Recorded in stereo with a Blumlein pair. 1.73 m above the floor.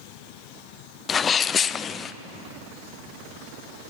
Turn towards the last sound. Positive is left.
turn(degrees=20)